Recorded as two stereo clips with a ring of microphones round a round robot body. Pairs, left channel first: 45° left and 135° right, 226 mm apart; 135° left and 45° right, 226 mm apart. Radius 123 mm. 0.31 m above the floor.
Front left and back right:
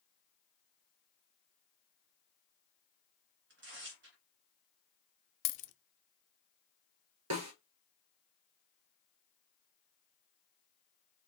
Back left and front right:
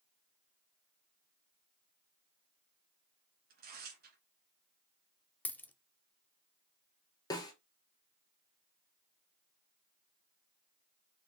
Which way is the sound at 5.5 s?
55° left.